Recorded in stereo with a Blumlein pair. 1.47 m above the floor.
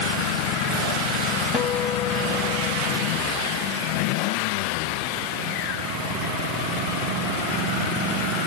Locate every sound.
1.5 s a guitar: 15° left, 1.7 m